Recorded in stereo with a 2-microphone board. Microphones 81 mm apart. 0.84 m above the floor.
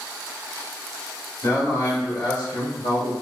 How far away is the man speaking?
About 1.6 m.